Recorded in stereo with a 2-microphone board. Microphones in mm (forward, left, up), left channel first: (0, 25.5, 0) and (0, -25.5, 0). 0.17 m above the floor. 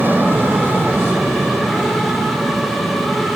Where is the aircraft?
40° right (ahead or behind).